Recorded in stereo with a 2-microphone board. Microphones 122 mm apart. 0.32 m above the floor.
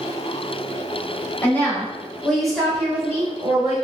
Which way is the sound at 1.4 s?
15° left (ahead or behind).